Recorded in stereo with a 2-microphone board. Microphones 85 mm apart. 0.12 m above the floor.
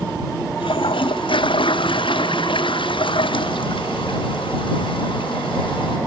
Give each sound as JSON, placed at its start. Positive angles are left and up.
{"t": 0.6, "sound": "a toilet flushing", "side_deg": 75}